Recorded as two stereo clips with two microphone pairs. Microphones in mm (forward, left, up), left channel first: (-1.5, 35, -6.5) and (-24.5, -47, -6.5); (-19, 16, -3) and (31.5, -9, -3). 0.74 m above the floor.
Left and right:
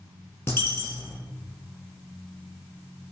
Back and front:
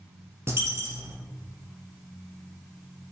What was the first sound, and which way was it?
A dropped coin, 10° left.